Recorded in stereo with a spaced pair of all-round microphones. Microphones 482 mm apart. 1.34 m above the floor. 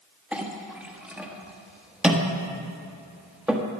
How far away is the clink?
About 1.2 m.